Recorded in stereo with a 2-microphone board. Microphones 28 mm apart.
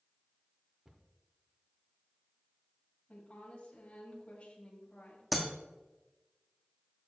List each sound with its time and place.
0.8 s a cupboard door: 20° right (ahead or behind), 0.8 m
3.1 s a woman speaking: 45° left (ahead or behind), 2.5 m
5.3 s breaking glass: 10° right (ahead or behind), 1.5 m